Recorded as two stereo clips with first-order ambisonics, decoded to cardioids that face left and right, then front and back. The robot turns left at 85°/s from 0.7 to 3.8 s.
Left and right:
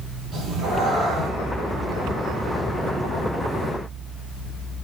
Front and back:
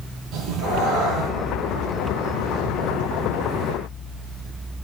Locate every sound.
0.3 s a cat meowing: 155° right, 2.5 m; by 1.3 s 155° left, 2.5 m